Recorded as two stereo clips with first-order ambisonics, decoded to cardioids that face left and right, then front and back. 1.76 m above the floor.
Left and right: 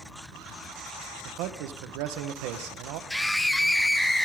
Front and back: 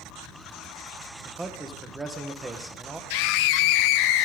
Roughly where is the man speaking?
Right.